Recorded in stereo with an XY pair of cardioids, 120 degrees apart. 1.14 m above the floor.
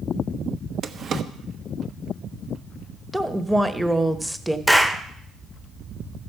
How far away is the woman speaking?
About 1.1 m.